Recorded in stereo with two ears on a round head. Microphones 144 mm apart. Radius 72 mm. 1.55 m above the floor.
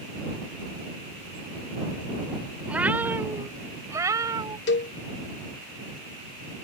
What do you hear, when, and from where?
2.7 s a cat meowing: 5° right (ahead or behind); by 4.6 s 20° right (ahead or behind)
4.7 s a cowbell: 85° left